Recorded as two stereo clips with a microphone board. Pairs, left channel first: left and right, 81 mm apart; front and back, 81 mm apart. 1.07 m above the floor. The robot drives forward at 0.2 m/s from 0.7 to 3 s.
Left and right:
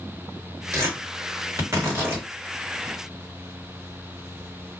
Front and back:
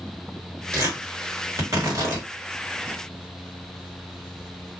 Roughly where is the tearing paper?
Behind right.